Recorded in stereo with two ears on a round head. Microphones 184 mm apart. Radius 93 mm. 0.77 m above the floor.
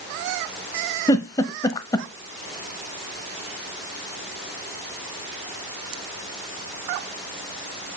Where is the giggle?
20° left (ahead or behind), 0.7 m.